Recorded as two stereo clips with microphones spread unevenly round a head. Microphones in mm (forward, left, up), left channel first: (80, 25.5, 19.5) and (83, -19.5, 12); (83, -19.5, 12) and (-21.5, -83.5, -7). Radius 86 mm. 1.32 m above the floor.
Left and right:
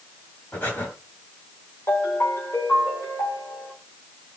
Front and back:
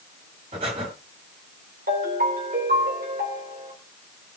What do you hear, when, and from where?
0.5 s breathing: 155° left, 2 m
1.9 s a ringtone: 165° left, 3 m